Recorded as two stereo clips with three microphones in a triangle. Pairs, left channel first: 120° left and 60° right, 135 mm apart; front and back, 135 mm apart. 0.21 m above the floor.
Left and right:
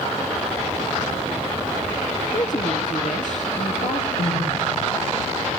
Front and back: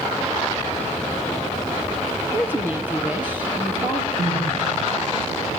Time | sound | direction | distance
2.3 | a woman speaking | 105° left | 4.5 m
4.2 | crying | 95° left | 10 m